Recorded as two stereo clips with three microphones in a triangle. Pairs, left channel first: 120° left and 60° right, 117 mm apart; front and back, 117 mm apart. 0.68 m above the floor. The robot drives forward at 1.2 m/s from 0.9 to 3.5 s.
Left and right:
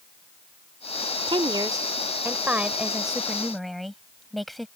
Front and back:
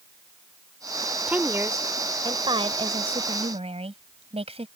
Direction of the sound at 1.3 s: 100° right.